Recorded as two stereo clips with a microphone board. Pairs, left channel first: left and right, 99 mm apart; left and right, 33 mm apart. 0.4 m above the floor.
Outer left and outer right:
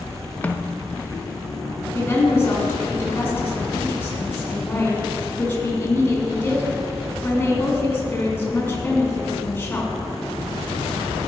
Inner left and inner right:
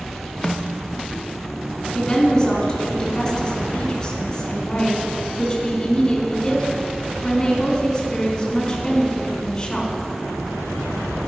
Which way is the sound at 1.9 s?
20° left (ahead or behind).